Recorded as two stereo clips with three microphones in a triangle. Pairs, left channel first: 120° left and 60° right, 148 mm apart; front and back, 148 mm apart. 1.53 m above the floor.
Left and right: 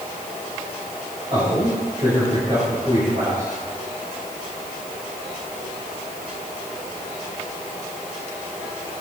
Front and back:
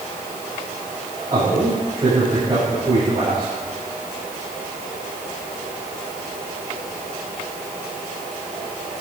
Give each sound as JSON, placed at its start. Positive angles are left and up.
{"t": 1.3, "sound": "a man speaking", "azimuth_deg": -115, "distance_m": 9.5}